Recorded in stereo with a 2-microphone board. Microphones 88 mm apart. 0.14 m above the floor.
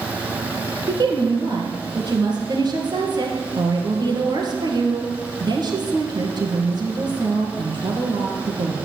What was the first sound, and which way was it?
A woman speaking, 55° right (ahead or behind).